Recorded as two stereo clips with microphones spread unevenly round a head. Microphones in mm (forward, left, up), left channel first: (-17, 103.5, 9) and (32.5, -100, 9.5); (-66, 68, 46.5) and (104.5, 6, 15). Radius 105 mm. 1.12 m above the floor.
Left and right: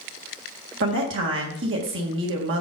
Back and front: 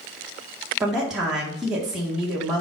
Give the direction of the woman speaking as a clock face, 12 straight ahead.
3 o'clock.